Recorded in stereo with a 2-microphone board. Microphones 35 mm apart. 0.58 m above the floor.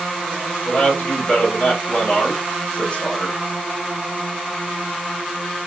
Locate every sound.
0.7 s a man speaking: 30° left (ahead or behind), 2.5 m